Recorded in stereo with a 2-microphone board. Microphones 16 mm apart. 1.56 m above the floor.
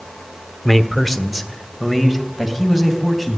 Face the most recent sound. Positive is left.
turn(degrees=-15)  # may be behind; listen again after turning